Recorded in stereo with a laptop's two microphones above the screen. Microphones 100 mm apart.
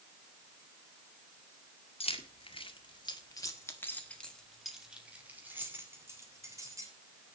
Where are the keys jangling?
70° left (ahead or behind), 2.0 m; by 6.9 s 35° right (ahead or behind), 3 m.